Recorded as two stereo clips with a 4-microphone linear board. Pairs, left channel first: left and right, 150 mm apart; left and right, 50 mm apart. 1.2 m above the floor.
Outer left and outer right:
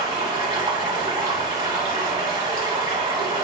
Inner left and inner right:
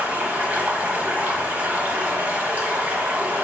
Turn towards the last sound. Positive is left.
turn(degrees=-30)  # may be behind; listen again after turning